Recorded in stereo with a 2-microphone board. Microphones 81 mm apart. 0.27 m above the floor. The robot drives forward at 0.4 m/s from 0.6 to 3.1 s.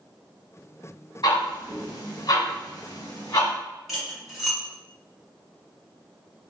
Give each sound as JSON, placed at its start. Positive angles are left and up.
{"t": 1.2, "sound": "ticking", "side_deg": 60, "distance_m": 1.2}
{"t": 3.9, "sound": "cutlery clinking", "side_deg": 0, "distance_m": 1.8}